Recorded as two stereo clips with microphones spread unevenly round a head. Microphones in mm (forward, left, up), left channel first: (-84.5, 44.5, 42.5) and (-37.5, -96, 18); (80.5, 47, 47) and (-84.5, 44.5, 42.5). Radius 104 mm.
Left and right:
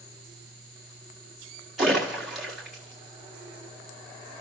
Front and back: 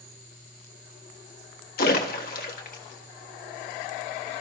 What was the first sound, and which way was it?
A splash, 20° left.